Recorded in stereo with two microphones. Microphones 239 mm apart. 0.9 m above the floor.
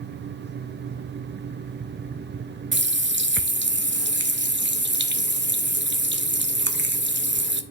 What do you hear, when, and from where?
2.7 s a running tap: 50° right (ahead or behind), 0.5 m